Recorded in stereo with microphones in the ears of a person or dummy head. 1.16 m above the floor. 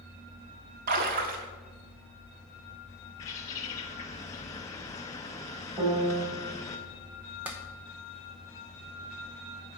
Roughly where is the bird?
Centre.